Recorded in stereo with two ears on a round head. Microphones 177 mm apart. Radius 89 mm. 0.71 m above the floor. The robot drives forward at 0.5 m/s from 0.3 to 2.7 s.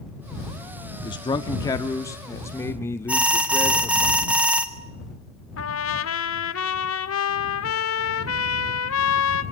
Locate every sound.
1.0 s a man speaking: 25° left (ahead or behind), 0.9 m; by 4.1 s 15° left (ahead or behind), 1.6 m
3.1 s an alarm: 5° right (ahead or behind), 1.7 m
5.6 s a trumpet: 80° left, 1.4 m